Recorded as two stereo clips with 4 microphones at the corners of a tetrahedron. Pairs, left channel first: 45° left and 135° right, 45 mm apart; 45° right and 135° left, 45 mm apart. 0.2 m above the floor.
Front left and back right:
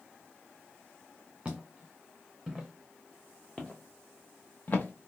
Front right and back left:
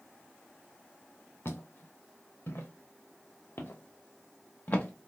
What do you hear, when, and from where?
1.4 s footsteps: 60° right, 2 m; by 5.1 s straight ahead, 1.3 m